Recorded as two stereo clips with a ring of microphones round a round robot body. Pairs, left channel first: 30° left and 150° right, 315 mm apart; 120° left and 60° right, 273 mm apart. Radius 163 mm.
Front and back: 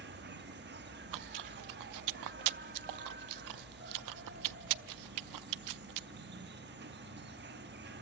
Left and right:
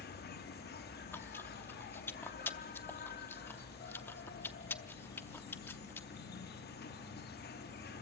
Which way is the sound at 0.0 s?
165° left.